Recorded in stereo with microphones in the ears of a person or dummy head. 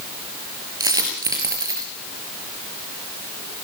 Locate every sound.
0.8 s a dropped coin: 15° right (ahead or behind), 4.5 m